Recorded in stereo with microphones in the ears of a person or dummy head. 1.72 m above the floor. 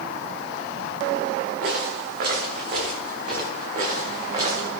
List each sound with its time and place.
1.6 s footsteps: 55° right (ahead or behind), 7 m; by 4.7 s 35° right (ahead or behind), 6.5 m